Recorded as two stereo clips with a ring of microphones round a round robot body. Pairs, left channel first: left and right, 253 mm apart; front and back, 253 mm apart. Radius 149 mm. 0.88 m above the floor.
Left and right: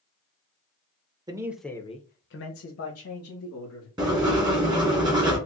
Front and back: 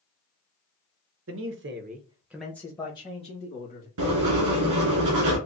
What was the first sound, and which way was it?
A man speaking, 160° right.